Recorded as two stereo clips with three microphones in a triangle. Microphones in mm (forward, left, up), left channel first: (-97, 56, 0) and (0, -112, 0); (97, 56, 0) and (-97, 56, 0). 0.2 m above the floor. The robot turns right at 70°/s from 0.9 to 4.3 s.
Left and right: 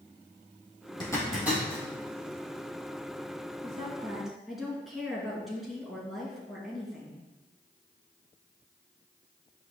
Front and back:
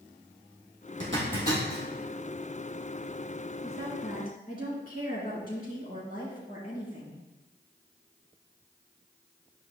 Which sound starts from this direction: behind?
A zipper, at 1.0 s.